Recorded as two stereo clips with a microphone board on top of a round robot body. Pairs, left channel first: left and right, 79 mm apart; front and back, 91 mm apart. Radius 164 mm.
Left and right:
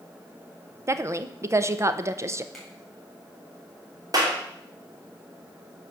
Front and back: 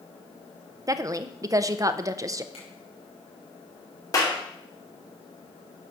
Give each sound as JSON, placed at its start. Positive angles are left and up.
{"t": 0.9, "sound": "a woman speaking", "azimuth_deg": -135, "distance_m": 0.8}
{"t": 2.5, "sound": "a finger snap", "azimuth_deg": 5, "distance_m": 4.5}
{"t": 4.1, "sound": "a clap", "azimuth_deg": -50, "distance_m": 2.5}